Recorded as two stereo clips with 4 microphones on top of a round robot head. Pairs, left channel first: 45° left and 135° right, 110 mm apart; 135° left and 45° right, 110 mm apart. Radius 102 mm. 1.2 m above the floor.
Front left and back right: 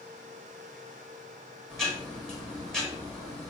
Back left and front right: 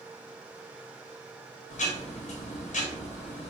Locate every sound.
1.7 s ticking: 135° left, 2 m